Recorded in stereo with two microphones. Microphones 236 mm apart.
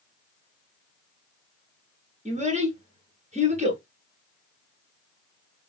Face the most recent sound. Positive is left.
turn(degrees=-30)  # may be behind; listen again after turning